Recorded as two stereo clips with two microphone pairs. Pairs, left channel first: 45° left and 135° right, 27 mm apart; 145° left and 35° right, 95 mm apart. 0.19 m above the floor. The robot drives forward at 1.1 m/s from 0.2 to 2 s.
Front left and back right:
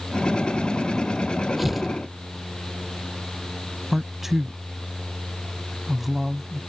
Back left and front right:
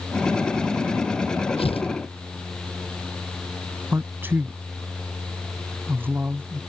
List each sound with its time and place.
1.6 s tearing paper: 140° left
3.9 s a man speaking: 65° right